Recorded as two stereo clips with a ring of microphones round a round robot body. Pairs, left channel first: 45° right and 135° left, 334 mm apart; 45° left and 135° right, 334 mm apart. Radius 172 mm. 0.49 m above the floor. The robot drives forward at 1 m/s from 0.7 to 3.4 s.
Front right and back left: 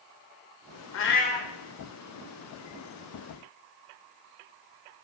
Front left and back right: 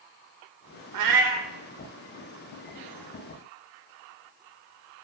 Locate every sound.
0.9 s a cat meowing: 95° right, 0.8 m; by 1.5 s 130° right, 1.0 m